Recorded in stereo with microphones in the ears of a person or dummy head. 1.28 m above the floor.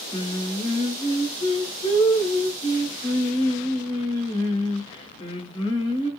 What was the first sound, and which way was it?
Singing, 30° left (ahead or behind).